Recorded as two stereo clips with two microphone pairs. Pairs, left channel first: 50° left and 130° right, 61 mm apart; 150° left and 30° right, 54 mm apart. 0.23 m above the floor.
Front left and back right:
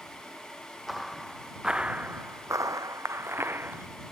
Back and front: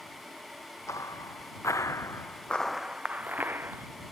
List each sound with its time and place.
0.9 s footsteps: 140° left; by 3.9 s 75° right